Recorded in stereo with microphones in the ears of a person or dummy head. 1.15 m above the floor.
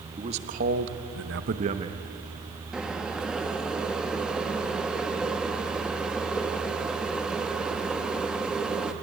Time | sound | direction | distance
0.2 | a man speaking | 30° right (ahead or behind) | 1.6 m
2.7 | boiling | 5° right (ahead or behind) | 1.3 m